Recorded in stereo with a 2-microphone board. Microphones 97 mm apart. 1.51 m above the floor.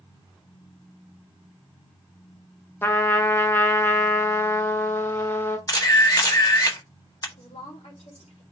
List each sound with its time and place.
2.8 s a trumpet: 25° left (ahead or behind), 1.1 m
5.7 s a camera shutter: 40° left (ahead or behind), 1.4 m
7.4 s a woman speaking: 80° left, 4.5 m